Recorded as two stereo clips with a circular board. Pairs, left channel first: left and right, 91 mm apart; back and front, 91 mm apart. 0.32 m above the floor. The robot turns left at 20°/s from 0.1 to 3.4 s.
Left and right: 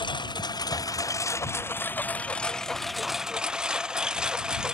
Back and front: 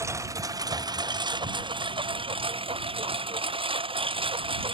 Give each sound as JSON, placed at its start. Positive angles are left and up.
{"t": 0.0, "sound": "a lawn mower", "azimuth_deg": 60}